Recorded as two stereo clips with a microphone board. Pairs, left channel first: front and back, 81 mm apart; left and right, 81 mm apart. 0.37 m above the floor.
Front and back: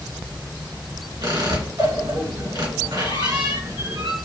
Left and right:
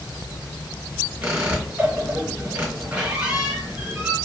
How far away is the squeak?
About 2.5 m.